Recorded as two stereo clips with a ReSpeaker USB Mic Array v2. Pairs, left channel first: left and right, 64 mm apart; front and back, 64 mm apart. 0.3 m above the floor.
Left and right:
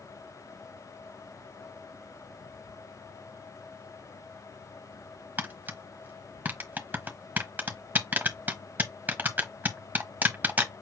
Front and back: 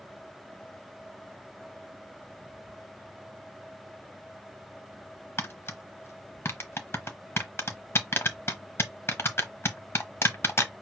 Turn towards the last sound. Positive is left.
turn(degrees=-35)